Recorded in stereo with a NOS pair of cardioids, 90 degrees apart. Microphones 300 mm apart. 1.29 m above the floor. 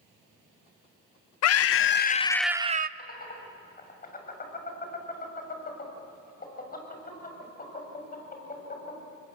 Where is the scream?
60° left, 0.9 m; by 2.9 s 35° right, 0.6 m.